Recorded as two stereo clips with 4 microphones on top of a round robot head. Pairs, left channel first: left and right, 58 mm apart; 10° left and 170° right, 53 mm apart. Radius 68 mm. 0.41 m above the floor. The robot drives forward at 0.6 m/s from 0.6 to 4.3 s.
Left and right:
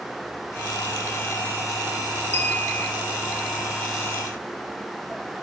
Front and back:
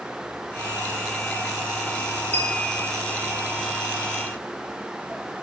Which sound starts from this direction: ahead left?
A clink, at 2.3 s.